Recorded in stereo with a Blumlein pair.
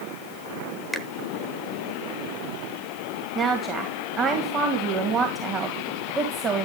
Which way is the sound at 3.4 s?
25° right.